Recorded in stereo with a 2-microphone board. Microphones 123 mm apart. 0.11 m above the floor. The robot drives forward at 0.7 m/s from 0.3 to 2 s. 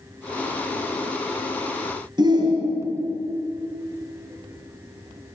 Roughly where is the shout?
Right.